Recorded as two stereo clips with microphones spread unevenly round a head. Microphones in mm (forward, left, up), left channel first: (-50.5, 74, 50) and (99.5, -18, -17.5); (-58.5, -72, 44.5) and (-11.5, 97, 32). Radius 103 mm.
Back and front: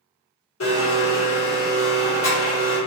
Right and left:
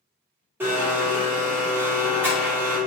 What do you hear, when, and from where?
0.6 s a blender: 155° left, 1.6 m